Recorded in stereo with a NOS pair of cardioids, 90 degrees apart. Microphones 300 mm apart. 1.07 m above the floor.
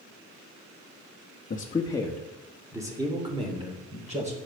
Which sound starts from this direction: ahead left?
A man speaking, at 1.5 s.